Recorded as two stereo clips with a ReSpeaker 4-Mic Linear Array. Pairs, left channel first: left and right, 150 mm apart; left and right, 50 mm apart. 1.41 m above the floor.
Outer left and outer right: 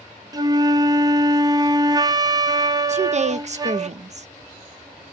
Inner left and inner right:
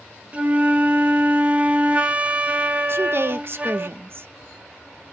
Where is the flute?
25° right (ahead or behind), 0.6 m.